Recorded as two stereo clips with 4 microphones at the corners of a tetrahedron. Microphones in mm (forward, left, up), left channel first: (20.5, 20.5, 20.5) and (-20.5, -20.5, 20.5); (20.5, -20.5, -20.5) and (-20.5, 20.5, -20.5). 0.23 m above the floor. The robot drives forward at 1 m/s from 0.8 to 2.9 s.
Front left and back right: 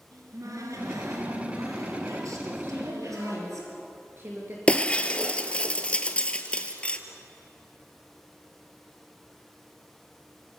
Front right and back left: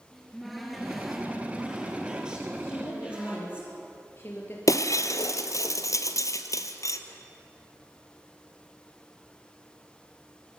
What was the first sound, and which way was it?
A cupboard door, 135° right.